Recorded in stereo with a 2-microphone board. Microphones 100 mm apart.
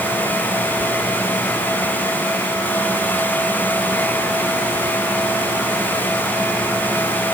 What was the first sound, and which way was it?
Only background noise.